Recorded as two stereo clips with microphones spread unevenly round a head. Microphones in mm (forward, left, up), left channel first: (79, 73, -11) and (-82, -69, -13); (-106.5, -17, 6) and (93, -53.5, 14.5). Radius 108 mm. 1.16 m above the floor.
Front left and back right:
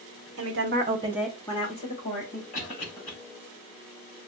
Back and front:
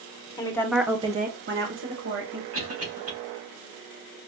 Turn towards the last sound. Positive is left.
turn(degrees=-15)